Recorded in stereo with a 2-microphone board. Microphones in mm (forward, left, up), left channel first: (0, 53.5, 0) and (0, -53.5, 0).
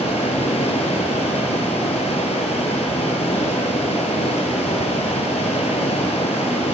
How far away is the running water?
About 1.1 m.